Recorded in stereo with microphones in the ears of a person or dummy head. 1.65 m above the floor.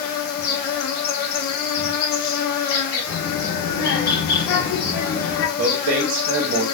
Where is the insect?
50° left (ahead or behind), 0.9 m.